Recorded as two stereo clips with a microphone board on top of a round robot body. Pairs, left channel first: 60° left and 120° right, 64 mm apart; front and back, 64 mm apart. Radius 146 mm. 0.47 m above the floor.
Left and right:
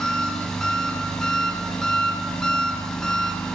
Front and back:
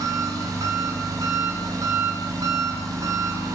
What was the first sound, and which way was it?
An engine running, 140° left.